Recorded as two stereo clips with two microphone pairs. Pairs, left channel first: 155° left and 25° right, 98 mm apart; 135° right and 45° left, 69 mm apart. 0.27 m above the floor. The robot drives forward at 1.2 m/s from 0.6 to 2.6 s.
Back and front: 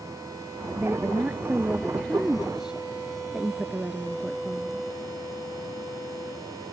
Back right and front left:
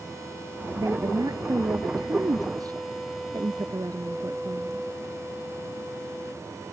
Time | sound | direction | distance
0.8 | a woman speaking | 40° left | ?